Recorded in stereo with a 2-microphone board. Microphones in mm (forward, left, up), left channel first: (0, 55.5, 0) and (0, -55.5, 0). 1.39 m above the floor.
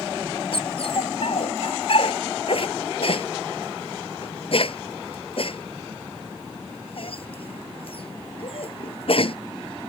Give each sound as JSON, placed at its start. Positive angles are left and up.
{"t": 0.5, "sound": "a dog barking", "side_deg": 55}